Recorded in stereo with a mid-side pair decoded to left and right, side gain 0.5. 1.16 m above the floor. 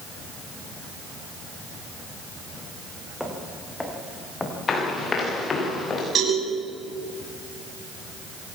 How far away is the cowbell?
About 8.5 m.